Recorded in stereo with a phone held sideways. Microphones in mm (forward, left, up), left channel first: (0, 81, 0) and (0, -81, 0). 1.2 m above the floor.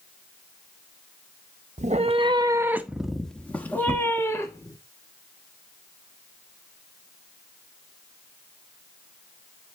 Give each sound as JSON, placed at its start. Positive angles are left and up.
{"t": 1.8, "sound": "a cat meowing", "side_deg": -50, "distance_m": 0.6}